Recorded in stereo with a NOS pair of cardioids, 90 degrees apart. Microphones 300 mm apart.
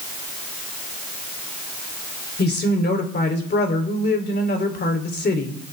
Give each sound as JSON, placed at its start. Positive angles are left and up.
{"t": 2.4, "sound": "a woman speaking", "azimuth_deg": 35, "distance_m": 3.5}